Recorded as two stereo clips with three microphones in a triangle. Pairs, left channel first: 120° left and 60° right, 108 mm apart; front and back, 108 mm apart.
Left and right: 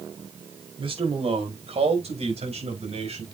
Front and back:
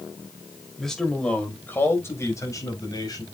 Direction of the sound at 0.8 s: 85° right.